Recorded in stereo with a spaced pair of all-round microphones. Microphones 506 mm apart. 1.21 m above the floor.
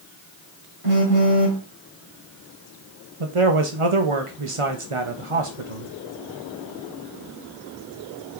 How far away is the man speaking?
About 1.0 m.